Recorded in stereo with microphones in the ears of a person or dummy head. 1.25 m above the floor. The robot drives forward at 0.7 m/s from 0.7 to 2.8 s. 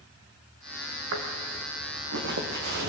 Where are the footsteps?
70° right (ahead or behind), 4 m; by 2.9 s 50° right (ahead or behind), 3 m.